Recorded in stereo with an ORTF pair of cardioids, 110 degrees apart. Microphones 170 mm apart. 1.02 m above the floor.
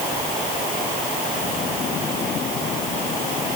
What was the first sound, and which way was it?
Only background noise.